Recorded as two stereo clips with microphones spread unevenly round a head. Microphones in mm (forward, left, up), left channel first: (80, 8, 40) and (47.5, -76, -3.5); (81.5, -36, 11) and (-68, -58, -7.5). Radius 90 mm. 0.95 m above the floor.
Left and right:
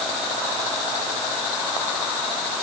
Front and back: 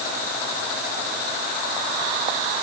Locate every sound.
Only background noise.